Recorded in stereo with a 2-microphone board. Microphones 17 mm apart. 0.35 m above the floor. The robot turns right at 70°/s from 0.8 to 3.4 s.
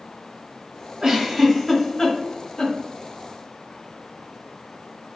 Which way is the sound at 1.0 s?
40° right (ahead or behind).